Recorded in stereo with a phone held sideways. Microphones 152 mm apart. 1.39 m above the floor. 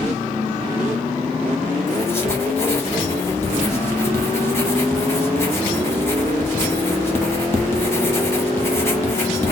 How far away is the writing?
About 1.2 m.